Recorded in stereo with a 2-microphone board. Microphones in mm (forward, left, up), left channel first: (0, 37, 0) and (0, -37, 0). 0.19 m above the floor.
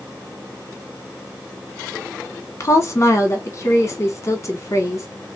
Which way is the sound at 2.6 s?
40° left (ahead or behind).